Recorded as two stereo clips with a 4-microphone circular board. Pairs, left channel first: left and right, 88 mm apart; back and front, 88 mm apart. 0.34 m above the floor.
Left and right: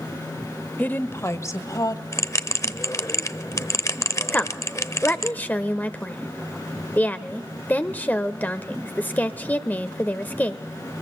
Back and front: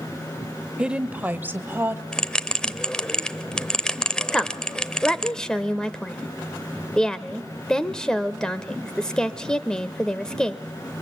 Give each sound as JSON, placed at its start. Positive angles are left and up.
{"t": 0.8, "sound": "a woman speaking", "azimuth_deg": 60, "distance_m": 0.8}
{"t": 2.1, "sound": "a bell", "azimuth_deg": 105, "distance_m": 0.7}
{"t": 4.3, "sound": "a woman speaking", "azimuth_deg": 110, "distance_m": 0.9}